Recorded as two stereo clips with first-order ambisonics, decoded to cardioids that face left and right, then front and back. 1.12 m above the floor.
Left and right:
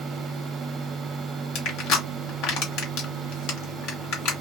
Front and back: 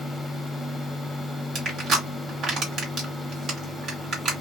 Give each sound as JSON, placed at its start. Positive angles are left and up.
{"t": 1.6, "sound": "crushing", "azimuth_deg": 120, "distance_m": 1.5}